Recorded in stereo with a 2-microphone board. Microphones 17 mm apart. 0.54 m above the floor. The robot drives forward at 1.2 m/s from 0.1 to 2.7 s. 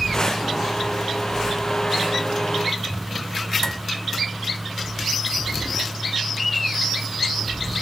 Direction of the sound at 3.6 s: 35° left (ahead or behind).